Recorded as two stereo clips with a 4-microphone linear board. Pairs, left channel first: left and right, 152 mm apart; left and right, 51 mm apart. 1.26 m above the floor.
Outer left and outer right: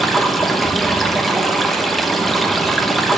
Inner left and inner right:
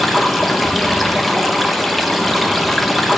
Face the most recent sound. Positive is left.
turn(degrees=0)  # may be behind; listen again after turning